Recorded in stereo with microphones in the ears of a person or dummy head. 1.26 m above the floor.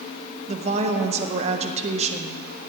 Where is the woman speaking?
35° right (ahead or behind), 1.0 m.